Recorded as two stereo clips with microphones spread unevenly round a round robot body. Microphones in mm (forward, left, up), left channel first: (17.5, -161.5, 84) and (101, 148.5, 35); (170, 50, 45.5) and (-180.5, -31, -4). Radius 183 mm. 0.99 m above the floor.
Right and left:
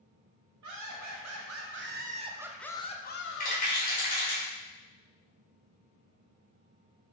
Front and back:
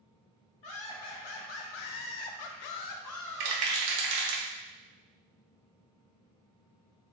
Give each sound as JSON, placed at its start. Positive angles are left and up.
{"t": 0.6, "sound": "laughter", "azimuth_deg": 45, "distance_m": 1.3}
{"t": 3.4, "sound": "a rattle", "azimuth_deg": -175, "distance_m": 1.1}